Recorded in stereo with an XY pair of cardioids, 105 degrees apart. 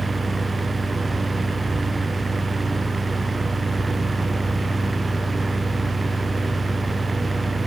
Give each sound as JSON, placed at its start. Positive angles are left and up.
{"t": 0.0, "sound": "a fan", "azimuth_deg": -20, "distance_m": 0.7}